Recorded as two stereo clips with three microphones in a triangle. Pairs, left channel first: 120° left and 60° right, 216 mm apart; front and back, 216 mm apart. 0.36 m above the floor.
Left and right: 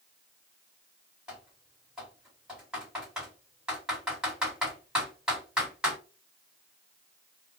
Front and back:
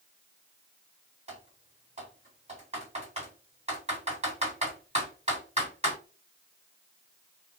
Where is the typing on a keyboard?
145° right, 1.8 m.